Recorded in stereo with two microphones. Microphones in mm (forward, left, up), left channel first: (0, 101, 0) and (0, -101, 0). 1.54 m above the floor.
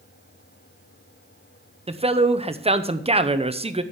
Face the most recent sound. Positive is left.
turn(degrees=-30)  # may be behind; listen again after turning